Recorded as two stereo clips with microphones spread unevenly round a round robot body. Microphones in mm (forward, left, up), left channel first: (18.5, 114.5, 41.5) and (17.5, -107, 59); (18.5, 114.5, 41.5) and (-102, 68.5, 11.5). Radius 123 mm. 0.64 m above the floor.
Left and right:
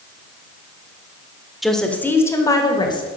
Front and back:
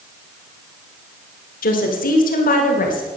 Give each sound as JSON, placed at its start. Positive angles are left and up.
{"t": 1.6, "sound": "a woman speaking", "azimuth_deg": 0, "distance_m": 1.7}